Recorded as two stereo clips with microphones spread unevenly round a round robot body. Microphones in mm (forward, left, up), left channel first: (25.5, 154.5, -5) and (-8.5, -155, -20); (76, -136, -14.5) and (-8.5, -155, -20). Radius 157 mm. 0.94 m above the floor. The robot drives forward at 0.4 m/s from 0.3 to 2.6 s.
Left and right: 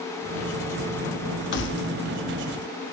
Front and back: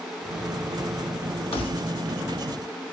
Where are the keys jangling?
25° left, 0.9 m; by 1.9 s 30° left, 0.8 m.